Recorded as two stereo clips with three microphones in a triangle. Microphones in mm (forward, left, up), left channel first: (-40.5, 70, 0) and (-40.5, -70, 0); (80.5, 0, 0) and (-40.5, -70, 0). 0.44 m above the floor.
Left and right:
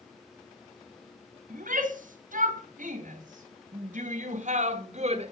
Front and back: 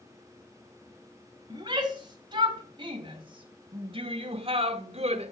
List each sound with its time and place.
1.5 s a shout: 90° right, 3.5 m; by 5.3 s 120° right, 1.5 m